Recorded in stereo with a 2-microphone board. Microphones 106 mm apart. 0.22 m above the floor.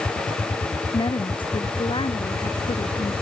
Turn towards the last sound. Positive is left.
turn(degrees=55)  # may be behind; listen again after turning